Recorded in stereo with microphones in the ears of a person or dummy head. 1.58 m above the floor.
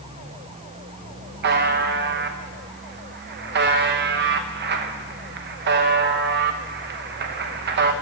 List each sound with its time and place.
1.4 s a buzzer: 50° right (ahead or behind), 1.0 m